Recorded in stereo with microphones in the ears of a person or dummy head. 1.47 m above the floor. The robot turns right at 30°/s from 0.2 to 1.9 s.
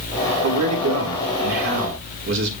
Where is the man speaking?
95° right, 4 m; by 2.5 s 55° right, 4 m.